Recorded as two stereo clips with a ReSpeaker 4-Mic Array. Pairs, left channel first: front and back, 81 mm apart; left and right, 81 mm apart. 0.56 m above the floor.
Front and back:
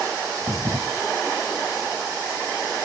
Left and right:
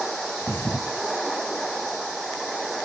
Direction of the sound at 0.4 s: 150° left.